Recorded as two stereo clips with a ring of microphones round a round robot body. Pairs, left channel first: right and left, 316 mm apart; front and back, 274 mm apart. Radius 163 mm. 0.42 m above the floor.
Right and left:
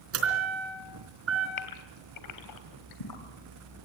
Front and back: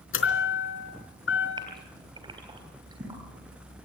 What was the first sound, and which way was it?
A chime, 40° left.